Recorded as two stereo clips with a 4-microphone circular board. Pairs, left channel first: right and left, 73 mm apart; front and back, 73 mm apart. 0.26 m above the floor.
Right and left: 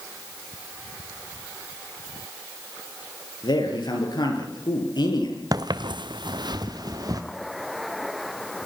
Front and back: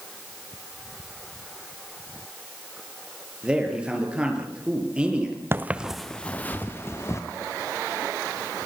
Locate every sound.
3.4 s a man speaking: 105° right, 6 m
5.5 s footsteps: 120° left, 1.1 m; by 7.2 s 50° left, 2.5 m